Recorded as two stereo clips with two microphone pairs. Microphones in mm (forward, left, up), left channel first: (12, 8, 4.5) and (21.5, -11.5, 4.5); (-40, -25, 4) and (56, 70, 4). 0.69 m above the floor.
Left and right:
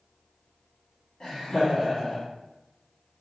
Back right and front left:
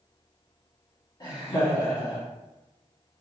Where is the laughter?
Straight behind, 1.7 m.